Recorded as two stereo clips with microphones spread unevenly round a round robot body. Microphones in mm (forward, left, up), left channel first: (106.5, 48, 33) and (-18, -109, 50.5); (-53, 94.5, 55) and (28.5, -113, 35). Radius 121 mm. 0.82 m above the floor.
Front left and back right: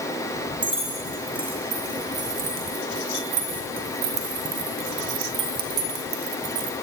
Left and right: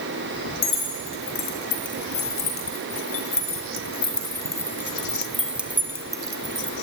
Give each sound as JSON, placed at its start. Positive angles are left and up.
{"t": 0.6, "sound": "keys jangling", "azimuth_deg": 145, "distance_m": 3.5}